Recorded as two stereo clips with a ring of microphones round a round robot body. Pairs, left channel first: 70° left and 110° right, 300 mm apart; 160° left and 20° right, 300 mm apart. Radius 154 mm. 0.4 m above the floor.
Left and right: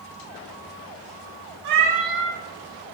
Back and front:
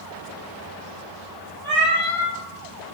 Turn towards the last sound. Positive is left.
turn(degrees=-120)